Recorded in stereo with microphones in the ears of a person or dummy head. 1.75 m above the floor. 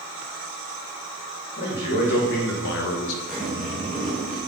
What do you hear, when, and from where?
1.6 s a man speaking: 60° left (ahead or behind), 2.5 m; by 3.2 s 80° left, 1.2 m
3.3 s a zipper: centre (ahead or behind), 2.0 m